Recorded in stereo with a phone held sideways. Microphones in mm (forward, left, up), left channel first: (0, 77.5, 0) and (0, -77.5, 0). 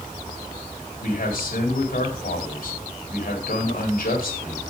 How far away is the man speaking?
About 3.5 m.